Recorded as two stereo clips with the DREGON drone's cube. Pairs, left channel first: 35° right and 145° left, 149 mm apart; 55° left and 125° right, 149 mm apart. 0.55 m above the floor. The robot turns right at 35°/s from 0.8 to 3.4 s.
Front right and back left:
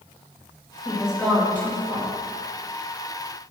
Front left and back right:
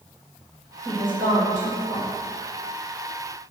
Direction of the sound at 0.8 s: 135° right.